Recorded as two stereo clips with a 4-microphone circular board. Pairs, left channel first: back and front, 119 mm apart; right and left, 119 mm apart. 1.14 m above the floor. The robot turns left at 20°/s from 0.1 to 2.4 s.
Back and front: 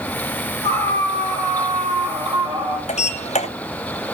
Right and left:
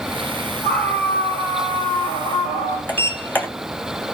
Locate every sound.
0.6 s a scream: 5° right, 5 m; by 2.8 s 40° right, 5 m
2.9 s a sliding door: 165° right, 2.5 m